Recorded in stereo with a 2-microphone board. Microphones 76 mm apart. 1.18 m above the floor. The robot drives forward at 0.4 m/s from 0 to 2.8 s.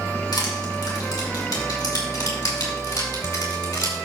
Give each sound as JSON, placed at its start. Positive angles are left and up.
{"t": 0.3, "sound": "crushing", "side_deg": 70, "distance_m": 4.0}